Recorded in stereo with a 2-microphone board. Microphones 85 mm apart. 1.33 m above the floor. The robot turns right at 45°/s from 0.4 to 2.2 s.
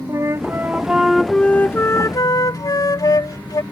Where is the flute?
35° right; by 3.6 s 45° left.